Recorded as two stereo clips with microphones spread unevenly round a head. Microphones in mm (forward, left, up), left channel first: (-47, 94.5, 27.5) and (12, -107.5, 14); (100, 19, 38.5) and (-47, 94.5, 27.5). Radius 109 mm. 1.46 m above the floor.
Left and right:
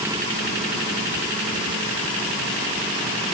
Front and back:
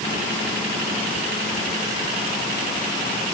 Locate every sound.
Only background noise.